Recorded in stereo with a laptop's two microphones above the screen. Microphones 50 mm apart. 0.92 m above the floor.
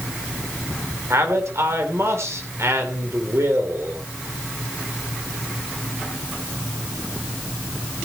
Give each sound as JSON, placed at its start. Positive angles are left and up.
{"t": 1.1, "sound": "a man speaking", "side_deg": -75, "distance_m": 3.5}